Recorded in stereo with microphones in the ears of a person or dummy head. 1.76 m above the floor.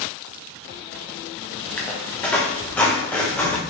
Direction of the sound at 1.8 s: 15° left (ahead or behind).